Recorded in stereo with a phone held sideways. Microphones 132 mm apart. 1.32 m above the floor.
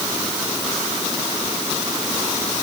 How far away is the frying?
No frying in this recording.